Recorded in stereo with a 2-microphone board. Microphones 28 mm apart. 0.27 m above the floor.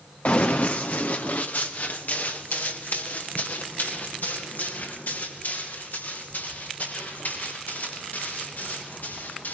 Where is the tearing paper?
No tearing paper in this recording.